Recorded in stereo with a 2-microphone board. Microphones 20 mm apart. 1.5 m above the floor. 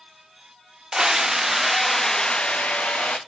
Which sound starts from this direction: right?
A scream, at 0.9 s.